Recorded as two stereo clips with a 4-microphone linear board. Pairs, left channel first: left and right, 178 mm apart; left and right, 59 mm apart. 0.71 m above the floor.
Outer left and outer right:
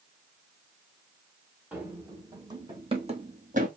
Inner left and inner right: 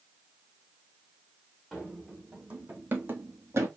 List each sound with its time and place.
1.7 s running footsteps: 10° right (ahead or behind), 1.6 m; by 3.7 s 50° right (ahead or behind), 1.3 m